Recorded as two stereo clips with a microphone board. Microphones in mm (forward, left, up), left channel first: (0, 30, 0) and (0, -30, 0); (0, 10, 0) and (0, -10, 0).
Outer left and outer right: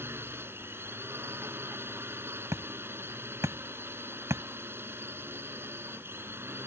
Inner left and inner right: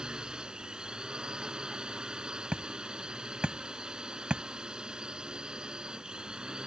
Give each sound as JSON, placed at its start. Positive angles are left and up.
{"t": 0.0, "sound": "a drone", "side_deg": -40}
{"t": 2.5, "sound": "hammering", "side_deg": -55}